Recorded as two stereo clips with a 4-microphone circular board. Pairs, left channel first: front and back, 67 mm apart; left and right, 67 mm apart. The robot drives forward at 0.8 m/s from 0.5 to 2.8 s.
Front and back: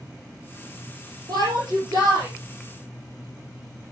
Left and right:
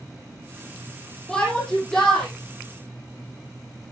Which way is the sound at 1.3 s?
170° left.